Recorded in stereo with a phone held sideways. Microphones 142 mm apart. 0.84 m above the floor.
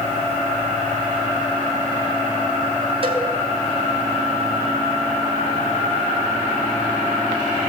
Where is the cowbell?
40° right (ahead or behind), 4.5 m.